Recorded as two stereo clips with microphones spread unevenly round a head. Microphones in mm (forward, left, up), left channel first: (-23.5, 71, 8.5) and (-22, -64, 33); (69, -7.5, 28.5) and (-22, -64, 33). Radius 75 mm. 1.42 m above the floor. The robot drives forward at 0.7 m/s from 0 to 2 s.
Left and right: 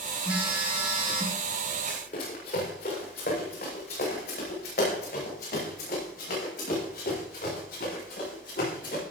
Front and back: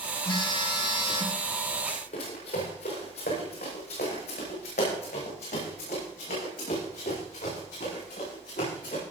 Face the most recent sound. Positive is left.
turn(degrees=60)